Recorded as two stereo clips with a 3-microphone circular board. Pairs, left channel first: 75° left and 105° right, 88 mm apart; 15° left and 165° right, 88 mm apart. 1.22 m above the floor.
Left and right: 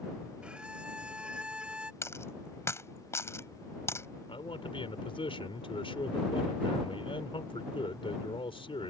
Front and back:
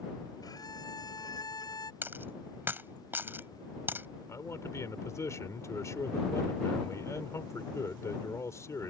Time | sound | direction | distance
0.4 | a violin | 25° right | ?
2.0 | a dropped coin | 130° left | ?
4.3 | a man speaking | 70° left | ?